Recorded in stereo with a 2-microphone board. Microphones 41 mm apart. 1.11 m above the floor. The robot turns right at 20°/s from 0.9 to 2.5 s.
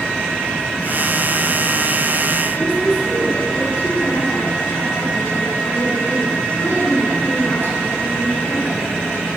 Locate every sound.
2.5 s a woman speaking: 75° left (ahead or behind), 10 m